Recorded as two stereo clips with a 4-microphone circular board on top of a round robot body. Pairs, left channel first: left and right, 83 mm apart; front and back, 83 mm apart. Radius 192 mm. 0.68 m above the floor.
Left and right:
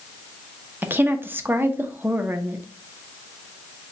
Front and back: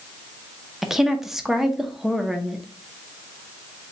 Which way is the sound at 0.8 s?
100° right.